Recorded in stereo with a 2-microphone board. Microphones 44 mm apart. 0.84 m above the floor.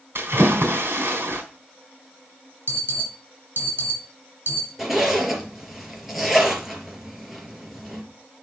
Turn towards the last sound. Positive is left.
turn(degrees=-5)  # may be behind; listen again after turning